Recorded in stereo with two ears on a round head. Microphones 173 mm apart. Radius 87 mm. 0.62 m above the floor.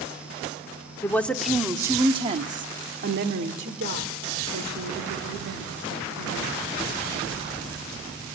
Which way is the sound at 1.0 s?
10° left (ahead or behind).